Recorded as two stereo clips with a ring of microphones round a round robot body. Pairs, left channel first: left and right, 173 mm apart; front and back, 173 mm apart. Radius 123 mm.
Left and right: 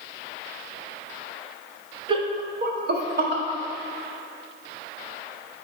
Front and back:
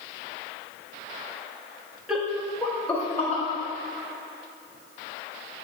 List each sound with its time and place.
2.1 s laughter: 100° right, 0.6 m; by 3.4 s 80° right, 1.3 m